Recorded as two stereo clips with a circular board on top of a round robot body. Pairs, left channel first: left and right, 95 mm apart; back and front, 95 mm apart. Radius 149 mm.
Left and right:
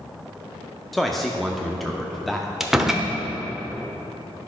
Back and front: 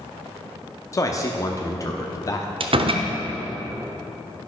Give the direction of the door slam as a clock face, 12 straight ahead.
12 o'clock.